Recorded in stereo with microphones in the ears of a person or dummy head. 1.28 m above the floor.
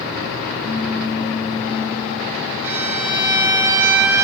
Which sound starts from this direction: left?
A pop, at 0.6 s.